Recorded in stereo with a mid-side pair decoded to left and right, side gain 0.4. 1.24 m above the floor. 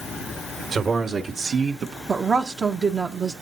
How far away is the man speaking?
About 1.7 m.